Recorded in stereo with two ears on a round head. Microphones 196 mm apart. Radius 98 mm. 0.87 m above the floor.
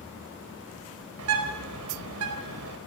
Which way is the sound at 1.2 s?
75° right (ahead or behind).